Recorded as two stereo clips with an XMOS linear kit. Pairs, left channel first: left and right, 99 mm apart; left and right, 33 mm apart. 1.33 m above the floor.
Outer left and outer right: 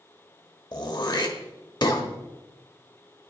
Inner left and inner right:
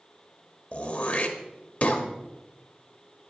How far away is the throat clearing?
About 1.3 m.